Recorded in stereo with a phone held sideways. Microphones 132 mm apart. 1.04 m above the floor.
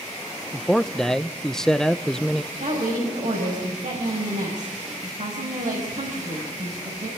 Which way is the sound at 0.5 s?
5° left (ahead or behind).